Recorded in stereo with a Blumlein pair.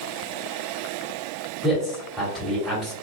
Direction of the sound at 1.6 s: 10° right.